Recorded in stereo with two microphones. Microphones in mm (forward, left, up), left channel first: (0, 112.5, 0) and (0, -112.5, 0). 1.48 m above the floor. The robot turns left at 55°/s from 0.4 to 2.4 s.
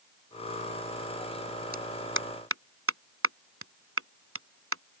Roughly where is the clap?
Right.